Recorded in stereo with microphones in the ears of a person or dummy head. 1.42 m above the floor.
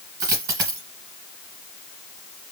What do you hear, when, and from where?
0.2 s a dropped coin: 15° right (ahead or behind), 1.4 m